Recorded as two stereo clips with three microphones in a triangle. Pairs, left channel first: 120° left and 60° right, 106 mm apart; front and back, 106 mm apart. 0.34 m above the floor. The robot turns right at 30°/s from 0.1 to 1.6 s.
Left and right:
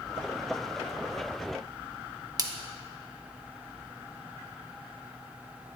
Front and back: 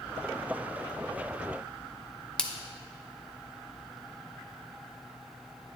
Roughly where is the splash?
Right.